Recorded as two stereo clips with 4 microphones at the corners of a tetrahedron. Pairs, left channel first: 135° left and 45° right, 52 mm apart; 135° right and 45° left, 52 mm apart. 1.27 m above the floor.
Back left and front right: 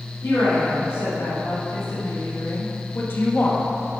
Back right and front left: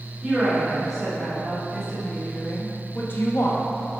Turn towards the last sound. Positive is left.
turn(degrees=-160)